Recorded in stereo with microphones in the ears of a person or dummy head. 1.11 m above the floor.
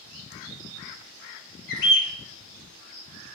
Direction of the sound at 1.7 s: 70° left (ahead or behind).